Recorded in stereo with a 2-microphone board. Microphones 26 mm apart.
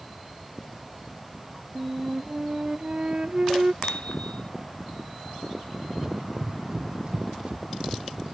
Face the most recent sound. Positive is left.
turn(degrees=-35)  # may be behind; listen again after turning